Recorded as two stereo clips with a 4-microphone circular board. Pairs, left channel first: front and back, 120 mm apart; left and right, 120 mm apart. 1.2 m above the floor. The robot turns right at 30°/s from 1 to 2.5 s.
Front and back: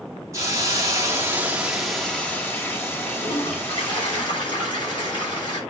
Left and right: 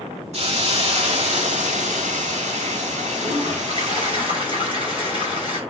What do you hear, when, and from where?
0.3 s a hiss: 115° right, 2.5 m; by 4.2 s 70° right, 2.5 m
3.2 s a toilet flushing: 50° right, 7.5 m